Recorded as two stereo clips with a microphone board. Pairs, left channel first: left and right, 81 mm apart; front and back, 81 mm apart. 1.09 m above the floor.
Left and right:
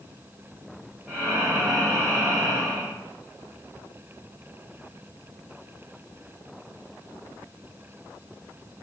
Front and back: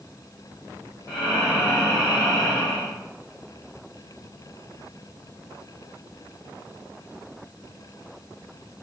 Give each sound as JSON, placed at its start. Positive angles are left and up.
{"t": 1.1, "sound": "breathing", "azimuth_deg": -25, "distance_m": 1.2}